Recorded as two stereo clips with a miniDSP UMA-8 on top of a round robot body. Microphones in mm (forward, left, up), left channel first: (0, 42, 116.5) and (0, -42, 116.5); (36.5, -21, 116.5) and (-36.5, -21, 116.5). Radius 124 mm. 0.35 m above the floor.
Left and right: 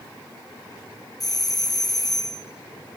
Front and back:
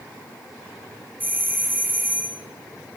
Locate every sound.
1.2 s a doorbell: 120° left, 2 m